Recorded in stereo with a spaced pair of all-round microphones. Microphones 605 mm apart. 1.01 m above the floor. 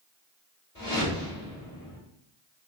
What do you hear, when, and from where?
0.8 s a whoosh: 30° left (ahead or behind), 1.8 m